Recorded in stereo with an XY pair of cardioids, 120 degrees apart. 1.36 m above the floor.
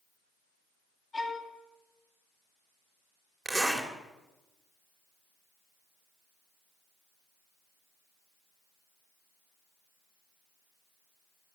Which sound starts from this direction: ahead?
A zipper, at 3.5 s.